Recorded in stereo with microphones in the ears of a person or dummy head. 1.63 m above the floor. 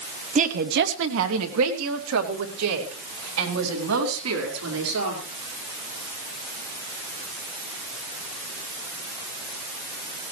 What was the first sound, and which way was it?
A woman speaking, 30° right (ahead or behind).